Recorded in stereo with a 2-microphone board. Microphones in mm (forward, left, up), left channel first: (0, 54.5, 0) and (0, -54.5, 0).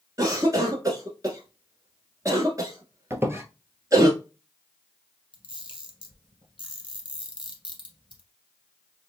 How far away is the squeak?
About 0.8 m.